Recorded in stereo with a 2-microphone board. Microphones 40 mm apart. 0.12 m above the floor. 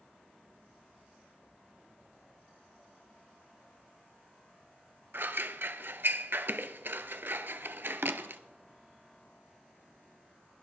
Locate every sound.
5.1 s scissors: 65° right (ahead or behind), 0.5 m